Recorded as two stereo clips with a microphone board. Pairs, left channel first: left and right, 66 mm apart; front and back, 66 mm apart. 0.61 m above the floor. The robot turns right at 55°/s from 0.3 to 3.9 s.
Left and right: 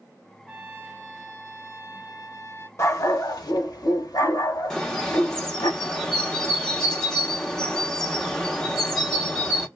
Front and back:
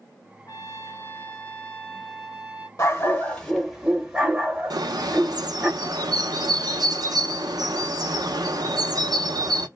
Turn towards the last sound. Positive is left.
turn(degrees=175)